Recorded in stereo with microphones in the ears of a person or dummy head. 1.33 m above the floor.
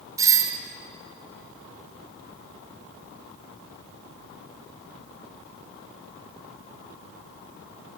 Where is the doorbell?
20° right (ahead or behind), 0.6 m.